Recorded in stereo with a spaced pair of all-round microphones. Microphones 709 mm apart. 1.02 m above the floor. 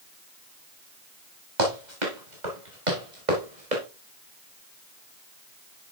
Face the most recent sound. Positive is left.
turn(degrees=-80)